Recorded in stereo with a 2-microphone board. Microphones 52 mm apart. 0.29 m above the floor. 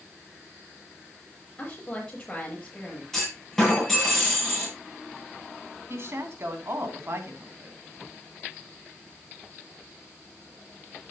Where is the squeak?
I don't hear a squeak.